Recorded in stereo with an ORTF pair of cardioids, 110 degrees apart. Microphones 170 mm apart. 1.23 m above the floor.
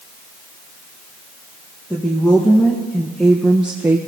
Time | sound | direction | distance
1.9 | a woman speaking | 5° left | 1.7 m